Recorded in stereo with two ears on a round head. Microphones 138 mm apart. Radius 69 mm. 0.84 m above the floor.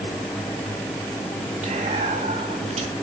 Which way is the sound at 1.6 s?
45° right (ahead or behind).